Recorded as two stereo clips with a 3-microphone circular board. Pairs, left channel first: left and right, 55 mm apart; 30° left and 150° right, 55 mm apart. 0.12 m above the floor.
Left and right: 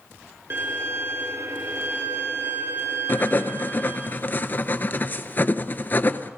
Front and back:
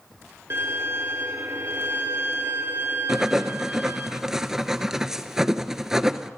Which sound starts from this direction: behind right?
A violin, at 0.5 s.